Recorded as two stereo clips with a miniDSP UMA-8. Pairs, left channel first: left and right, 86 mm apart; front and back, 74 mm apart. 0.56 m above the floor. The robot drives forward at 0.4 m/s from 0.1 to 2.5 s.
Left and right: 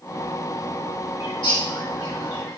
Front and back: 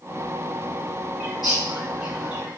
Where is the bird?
95° left, 2 m; by 2.6 s 110° left, 2 m.